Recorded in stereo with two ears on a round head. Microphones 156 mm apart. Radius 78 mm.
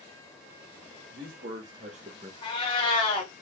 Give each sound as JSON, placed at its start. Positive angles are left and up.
{"t": 1.1, "sound": "a man speaking", "side_deg": -55, "distance_m": 1.9}
{"t": 2.4, "sound": "a cat meowing", "side_deg": 30, "distance_m": 1.4}